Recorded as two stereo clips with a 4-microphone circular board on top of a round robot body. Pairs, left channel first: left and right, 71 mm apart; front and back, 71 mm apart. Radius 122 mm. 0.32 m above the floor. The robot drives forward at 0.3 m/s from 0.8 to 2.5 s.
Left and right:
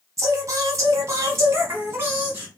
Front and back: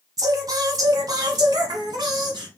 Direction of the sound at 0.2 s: 140° right.